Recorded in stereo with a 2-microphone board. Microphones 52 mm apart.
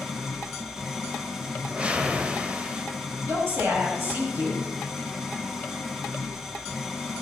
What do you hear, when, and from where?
0.0 s an engine running: 10° right (ahead or behind), 2.5 m
1.6 s a whoosh: 25° right (ahead or behind), 1.2 m
3.2 s a woman speaking: 45° right (ahead or behind), 6.5 m